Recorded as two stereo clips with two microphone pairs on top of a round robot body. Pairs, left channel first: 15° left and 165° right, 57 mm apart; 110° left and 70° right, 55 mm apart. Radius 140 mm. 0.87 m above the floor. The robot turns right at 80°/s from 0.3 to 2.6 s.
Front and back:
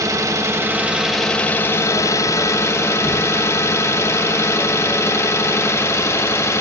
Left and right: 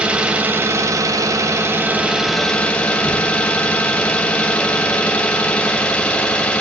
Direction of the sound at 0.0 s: 140° right.